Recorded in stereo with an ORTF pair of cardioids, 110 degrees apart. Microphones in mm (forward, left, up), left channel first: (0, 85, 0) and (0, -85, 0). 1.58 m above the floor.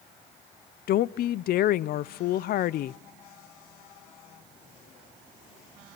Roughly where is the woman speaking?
Ahead left.